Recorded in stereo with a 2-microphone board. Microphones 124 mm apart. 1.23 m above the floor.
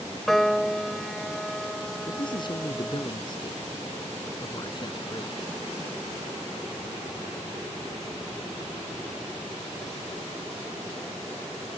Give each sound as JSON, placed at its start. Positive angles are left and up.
{"t": 0.3, "sound": "a piano", "side_deg": 0}
{"t": 2.1, "sound": "a man speaking", "side_deg": 40}